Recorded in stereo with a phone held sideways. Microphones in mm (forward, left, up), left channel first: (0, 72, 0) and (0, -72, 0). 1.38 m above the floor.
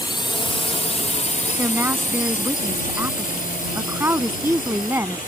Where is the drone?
30° left (ahead or behind); by 5.3 s 70° left (ahead or behind).